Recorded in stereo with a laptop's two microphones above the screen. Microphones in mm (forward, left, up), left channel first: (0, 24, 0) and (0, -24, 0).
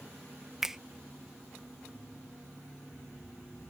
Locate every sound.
0.6 s a finger snap: 10° right (ahead or behind)